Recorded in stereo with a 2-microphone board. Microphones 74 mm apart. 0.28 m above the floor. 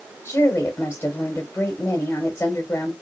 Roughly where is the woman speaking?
Left.